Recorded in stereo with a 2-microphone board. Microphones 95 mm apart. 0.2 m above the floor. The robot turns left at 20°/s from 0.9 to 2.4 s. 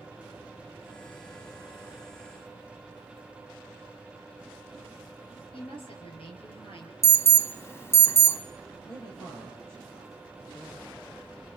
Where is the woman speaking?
70° left (ahead or behind), 4.5 m.